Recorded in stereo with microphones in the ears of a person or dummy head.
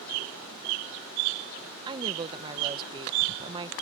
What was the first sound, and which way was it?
A woman speaking, 25° right (ahead or behind).